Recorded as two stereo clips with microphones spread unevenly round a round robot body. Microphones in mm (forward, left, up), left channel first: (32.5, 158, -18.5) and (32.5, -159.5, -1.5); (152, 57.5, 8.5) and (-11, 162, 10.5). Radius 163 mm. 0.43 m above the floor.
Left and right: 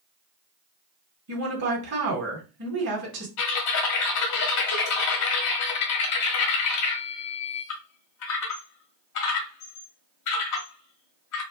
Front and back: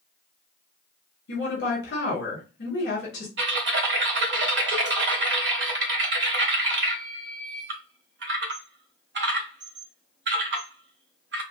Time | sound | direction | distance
1.3 | a woman speaking | 50° right | 2.5 m
3.4 | typing on a keyboard | 125° left | 1.1 m